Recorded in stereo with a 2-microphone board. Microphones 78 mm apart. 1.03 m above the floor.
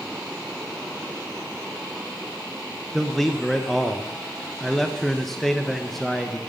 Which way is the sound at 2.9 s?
5° left (ahead or behind).